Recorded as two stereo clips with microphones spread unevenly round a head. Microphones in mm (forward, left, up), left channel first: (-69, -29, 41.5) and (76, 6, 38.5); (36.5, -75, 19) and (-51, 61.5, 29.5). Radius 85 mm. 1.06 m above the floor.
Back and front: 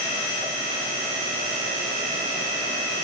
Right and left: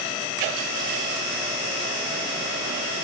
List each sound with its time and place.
Only background noise.